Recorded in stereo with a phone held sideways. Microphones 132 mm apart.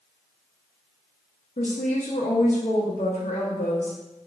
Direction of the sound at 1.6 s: 70° left (ahead or behind).